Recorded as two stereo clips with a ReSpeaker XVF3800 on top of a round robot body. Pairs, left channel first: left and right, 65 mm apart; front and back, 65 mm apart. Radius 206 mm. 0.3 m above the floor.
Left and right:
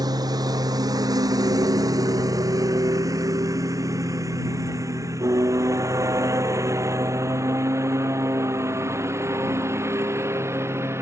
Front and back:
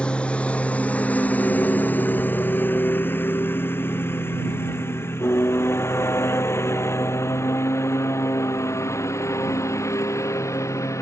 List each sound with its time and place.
0.0 s a lawn mower: 75° right; by 11.0 s 40° right